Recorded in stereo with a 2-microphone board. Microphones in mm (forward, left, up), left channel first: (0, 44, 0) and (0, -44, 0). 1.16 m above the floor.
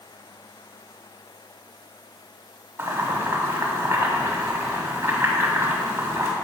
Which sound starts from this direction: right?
Boiling, at 2.8 s.